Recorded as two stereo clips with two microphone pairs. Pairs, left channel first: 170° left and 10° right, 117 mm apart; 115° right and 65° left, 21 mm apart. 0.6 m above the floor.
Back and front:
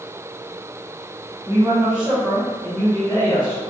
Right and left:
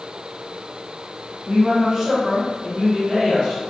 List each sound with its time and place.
1.5 s a woman speaking: 35° left, 1.1 m; by 3.7 s 140° left, 1.3 m